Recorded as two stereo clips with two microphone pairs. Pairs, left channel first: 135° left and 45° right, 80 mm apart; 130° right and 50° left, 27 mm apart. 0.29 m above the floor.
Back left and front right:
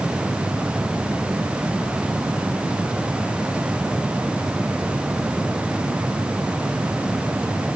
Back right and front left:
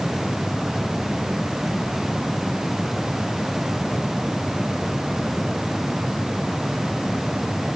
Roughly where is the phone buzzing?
I don't hear a phone buzzing.